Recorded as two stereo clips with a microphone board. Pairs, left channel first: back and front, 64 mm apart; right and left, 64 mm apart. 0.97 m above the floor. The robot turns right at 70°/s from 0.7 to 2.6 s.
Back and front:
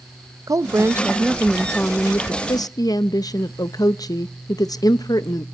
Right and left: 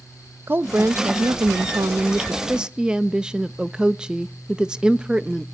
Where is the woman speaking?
35° left, 0.6 m; by 5.5 s 165° left, 0.6 m.